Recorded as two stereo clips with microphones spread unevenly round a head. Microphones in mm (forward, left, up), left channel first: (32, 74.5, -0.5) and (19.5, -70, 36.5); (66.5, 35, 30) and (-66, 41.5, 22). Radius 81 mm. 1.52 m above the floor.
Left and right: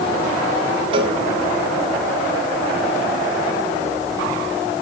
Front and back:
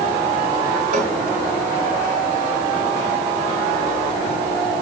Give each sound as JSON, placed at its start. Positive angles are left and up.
{"t": 0.9, "sound": "a cowbell", "azimuth_deg": -140, "distance_m": 2.5}